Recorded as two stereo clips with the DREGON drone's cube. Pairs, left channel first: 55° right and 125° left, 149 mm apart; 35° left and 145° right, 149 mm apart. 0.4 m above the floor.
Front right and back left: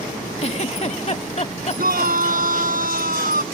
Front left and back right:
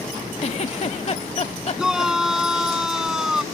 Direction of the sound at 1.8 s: 130° left.